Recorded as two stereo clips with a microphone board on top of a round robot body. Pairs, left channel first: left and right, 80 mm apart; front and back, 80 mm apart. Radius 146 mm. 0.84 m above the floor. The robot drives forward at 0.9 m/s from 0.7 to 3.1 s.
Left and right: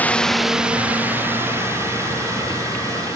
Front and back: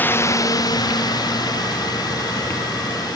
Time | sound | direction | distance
0.0 | a drone | 40° left | ?